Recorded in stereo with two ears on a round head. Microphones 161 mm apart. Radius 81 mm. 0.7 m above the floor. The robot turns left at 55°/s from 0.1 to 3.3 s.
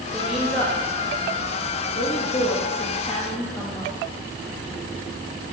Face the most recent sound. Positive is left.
turn(degrees=20)